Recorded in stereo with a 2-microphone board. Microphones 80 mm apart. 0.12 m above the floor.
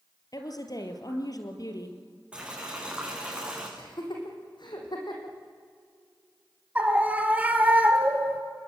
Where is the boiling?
15° right (ahead or behind), 6.5 m.